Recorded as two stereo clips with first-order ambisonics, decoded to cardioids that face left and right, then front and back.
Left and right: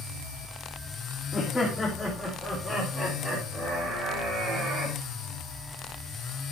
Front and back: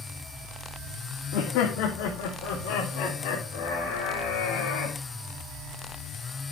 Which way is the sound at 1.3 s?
10° left.